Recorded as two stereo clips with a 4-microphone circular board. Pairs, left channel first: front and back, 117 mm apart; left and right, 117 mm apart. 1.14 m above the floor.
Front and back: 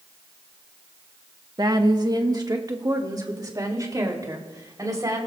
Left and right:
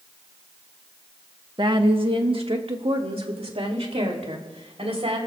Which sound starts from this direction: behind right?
A woman speaking, at 1.6 s.